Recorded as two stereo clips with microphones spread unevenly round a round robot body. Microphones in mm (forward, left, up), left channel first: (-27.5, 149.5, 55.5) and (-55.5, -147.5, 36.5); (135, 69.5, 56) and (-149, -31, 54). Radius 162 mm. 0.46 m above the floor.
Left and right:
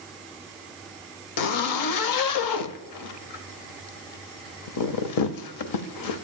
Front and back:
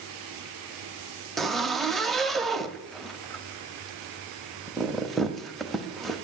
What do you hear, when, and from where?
1.4 s a zipper: 110° left, 0.7 m